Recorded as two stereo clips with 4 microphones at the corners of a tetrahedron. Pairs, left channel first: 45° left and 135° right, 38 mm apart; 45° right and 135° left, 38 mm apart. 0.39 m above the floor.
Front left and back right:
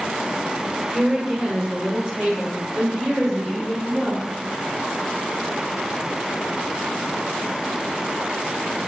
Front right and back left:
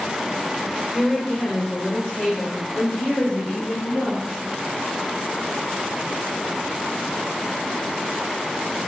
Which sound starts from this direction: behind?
A woman speaking, at 0.9 s.